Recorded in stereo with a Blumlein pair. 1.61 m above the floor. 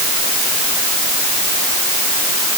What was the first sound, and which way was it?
Only background noise.